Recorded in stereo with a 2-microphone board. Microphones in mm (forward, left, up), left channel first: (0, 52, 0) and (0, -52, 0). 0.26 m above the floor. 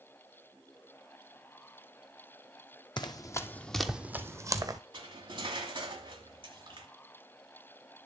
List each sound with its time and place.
3.0 s running footsteps: 45° left (ahead or behind), 0.6 m; by 4.8 s 40° right (ahead or behind), 0.8 m
4.9 s cutlery clinking: 55° right (ahead or behind), 1.4 m